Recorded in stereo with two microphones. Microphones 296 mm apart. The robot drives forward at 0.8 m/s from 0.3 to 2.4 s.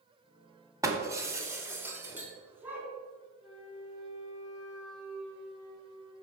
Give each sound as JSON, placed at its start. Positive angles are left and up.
{"t": 0.8, "sound": "breaking glass", "side_deg": -10, "distance_m": 1.3}
{"t": 3.4, "sound": "a flute", "side_deg": -5, "distance_m": 4.0}